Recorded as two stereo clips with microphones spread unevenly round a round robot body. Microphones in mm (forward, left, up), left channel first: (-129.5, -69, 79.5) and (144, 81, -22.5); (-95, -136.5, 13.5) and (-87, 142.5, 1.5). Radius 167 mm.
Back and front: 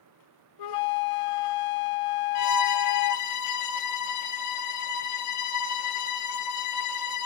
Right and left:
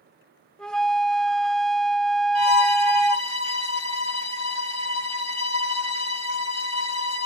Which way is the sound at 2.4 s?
120° right.